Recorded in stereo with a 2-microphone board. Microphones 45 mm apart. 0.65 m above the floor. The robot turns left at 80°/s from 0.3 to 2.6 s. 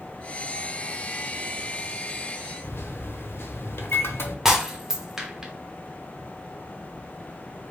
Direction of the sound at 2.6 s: 60° left (ahead or behind).